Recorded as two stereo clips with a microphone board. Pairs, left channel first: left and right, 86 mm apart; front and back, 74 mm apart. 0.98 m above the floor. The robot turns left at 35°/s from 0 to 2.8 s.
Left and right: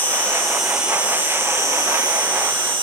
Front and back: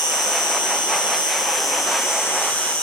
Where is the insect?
20° left, 1.1 m; by 2.8 s 75° right, 1.1 m.